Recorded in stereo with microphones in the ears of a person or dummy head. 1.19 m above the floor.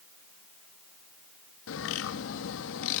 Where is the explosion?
No explosion in this recording.